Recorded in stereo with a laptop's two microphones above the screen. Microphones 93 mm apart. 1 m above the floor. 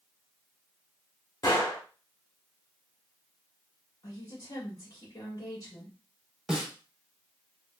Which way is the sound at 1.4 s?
40° left (ahead or behind).